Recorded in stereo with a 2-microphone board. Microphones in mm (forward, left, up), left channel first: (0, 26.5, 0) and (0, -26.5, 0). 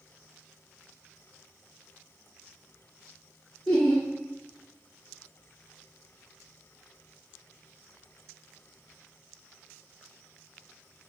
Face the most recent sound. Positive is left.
turn(degrees=5)  # may be behind; listen again after turning